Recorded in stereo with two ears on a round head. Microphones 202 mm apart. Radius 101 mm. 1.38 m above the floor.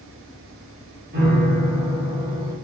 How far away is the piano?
About 1.4 m.